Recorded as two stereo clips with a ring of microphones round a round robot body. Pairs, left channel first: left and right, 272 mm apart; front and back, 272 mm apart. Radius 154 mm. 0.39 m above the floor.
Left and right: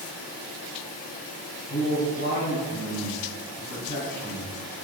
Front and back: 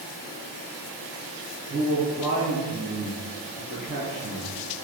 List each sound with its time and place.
1.7 s a man speaking: 100° left, 1.7 m